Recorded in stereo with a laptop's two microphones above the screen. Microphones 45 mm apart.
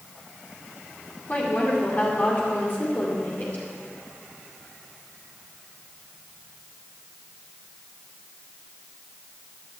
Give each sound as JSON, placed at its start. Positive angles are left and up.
{"t": 1.3, "sound": "a woman speaking", "side_deg": 45, "distance_m": 2.0}